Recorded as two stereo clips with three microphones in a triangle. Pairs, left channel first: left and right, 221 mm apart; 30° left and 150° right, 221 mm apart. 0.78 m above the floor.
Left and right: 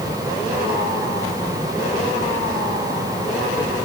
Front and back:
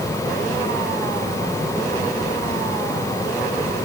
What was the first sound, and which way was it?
Only background noise.